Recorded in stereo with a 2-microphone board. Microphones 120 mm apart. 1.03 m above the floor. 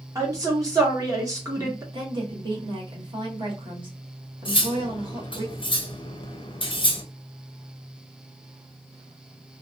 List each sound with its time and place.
0.1 s a woman speaking: 30° right (ahead or behind), 1.1 m
1.9 s a woman speaking: 45° right (ahead or behind), 1.0 m
4.5 s cutlery clinking: 45° left (ahead or behind), 0.6 m